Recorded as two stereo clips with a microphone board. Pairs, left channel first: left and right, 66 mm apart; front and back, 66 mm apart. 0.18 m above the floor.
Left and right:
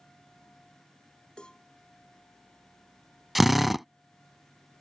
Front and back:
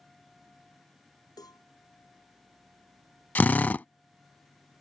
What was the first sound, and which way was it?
A cowbell, 15° left.